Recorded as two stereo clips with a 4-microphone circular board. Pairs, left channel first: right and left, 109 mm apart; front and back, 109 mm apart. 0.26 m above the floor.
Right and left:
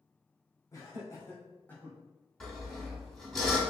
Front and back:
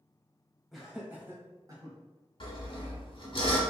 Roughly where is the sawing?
Ahead.